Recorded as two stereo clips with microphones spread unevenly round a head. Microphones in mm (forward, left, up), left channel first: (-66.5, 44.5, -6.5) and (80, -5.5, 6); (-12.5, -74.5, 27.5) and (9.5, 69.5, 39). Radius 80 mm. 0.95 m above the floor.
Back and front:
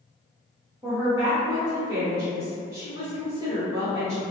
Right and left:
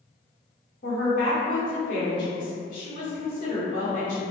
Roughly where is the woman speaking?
Right.